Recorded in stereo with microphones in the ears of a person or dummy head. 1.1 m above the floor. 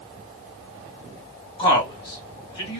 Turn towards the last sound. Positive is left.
turn(degrees=30)  # may be behind; listen again after turning